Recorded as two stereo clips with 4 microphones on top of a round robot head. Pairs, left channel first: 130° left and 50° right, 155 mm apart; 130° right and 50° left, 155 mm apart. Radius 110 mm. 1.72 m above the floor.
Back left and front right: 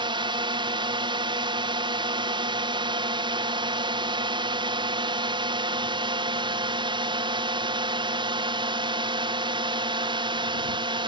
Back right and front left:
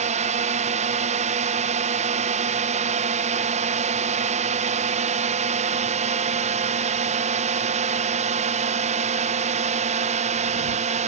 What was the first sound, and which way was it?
A drone, 10° left.